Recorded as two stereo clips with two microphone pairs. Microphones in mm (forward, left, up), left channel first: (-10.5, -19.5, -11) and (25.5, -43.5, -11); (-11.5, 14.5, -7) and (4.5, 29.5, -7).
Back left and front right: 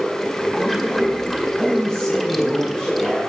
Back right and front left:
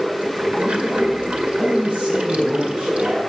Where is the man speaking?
75° left, 3.5 m.